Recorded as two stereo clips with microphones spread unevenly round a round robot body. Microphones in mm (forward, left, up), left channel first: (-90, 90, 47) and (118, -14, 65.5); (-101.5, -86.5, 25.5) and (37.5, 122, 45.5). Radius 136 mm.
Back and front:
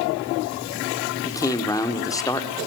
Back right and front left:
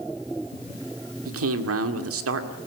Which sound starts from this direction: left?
A man speaking, at 1.2 s.